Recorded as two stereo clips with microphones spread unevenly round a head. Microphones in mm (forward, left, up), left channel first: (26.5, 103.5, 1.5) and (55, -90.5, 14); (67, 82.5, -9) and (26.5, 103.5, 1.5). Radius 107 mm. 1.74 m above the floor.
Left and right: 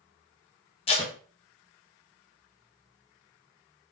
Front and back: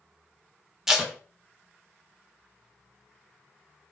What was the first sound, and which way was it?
Tape being pulled, 115° left.